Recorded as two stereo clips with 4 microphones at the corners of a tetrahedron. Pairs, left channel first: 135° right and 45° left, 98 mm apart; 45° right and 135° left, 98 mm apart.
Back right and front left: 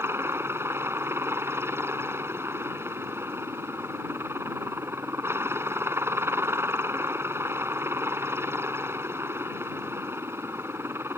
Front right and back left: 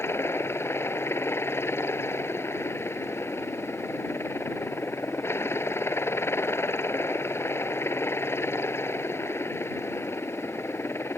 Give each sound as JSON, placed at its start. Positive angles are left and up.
{"t": 0.0, "sound": "a helicopter", "azimuth_deg": 0}